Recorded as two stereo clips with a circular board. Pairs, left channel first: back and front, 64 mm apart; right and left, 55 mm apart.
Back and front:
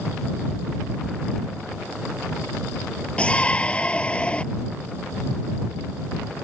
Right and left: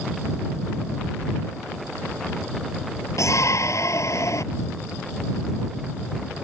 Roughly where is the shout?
Right.